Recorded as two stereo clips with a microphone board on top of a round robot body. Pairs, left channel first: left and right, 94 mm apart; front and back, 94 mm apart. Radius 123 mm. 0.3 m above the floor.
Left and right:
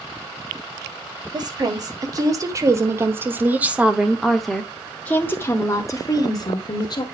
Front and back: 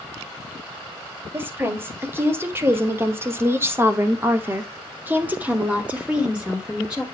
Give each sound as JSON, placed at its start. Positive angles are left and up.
{"t": 1.3, "sound": "a woman speaking", "azimuth_deg": -120, "distance_m": 2.0}